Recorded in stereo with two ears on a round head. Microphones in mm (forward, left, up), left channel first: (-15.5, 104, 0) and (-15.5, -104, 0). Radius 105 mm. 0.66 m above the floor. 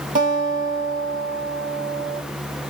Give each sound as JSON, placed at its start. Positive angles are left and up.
{"t": 0.1, "sound": "a guitar", "side_deg": -35, "distance_m": 1.4}